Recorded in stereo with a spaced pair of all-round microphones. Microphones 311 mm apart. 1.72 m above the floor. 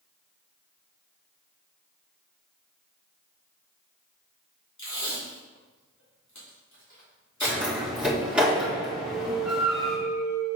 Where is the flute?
75° left (ahead or behind), 2.5 m.